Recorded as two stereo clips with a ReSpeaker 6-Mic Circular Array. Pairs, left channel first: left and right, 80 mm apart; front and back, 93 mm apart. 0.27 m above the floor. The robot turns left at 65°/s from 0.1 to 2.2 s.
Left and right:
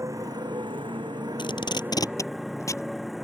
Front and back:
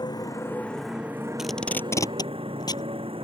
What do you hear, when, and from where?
0.0 s a motorcycle: 40° right; by 3.2 s straight behind
1.4 s tape being pulled: 95° left; by 2.9 s 40° left